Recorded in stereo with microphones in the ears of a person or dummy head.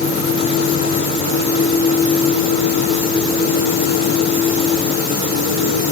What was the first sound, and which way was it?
Only background noise.